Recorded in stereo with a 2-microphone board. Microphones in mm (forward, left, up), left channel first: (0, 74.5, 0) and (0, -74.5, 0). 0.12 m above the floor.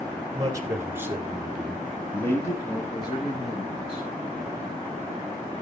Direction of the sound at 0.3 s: 25° right (ahead or behind).